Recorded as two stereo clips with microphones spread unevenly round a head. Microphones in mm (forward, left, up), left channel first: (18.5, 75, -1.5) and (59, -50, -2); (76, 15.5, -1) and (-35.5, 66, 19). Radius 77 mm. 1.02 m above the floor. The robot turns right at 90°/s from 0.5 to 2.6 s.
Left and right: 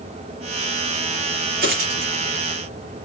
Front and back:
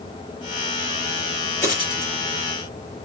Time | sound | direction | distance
1.6 | a dropped coin | 100° right | 5.5 m